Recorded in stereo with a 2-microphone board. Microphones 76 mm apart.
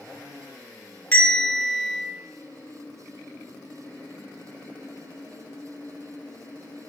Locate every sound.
1.1 s a bell: 20° left (ahead or behind), 1.0 m